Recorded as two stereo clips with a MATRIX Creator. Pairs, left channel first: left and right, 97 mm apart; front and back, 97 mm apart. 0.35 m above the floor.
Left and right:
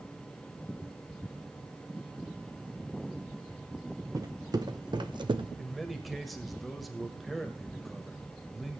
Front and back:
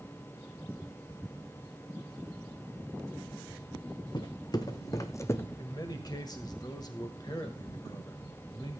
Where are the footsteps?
40° right, 1.5 m; by 5.5 s 65° right, 0.9 m.